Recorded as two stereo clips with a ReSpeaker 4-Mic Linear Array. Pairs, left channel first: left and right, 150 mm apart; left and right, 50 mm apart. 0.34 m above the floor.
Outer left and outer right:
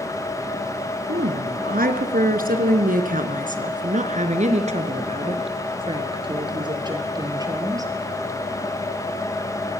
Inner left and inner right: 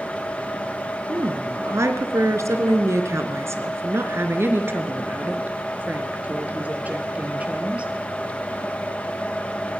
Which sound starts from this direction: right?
A woman speaking, at 1.1 s.